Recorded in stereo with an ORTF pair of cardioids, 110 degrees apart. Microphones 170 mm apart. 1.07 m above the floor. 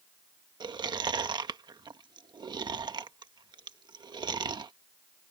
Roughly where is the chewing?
Ahead right.